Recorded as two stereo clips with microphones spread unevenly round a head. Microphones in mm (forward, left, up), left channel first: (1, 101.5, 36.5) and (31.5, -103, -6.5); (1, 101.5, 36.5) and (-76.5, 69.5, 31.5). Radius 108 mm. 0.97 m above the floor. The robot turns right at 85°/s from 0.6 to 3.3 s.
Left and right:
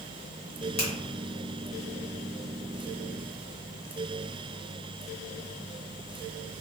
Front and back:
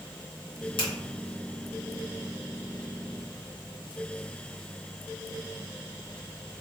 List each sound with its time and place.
0.8 s a finger snap: 35° left, 1.3 m; by 0.9 s 45° left, 1.3 m